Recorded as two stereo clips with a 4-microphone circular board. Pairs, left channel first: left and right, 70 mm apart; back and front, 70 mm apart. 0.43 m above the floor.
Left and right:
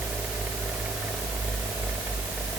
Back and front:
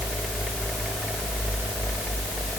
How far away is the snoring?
No snoring in this recording.